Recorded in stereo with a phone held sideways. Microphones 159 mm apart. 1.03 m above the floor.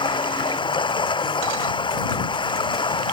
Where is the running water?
30° left (ahead or behind).